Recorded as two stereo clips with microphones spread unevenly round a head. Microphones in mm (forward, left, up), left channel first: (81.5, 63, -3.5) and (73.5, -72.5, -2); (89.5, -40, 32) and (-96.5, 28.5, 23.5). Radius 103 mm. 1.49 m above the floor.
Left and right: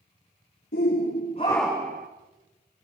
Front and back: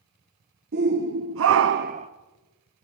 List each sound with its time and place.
0.7 s a shout: 120° left, 1.6 m; by 2.1 s 140° right, 1.0 m